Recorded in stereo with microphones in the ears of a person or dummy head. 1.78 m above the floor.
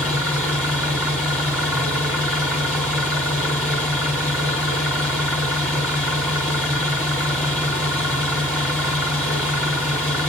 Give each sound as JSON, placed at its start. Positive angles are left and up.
{"t": 0.0, "sound": "an engine running", "side_deg": 0, "distance_m": 1.4}